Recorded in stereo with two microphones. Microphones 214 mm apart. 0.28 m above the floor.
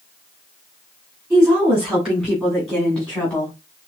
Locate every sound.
1.3 s a woman speaking: 5° right (ahead or behind), 2.5 m; by 3.5 s 10° left (ahead or behind), 1.7 m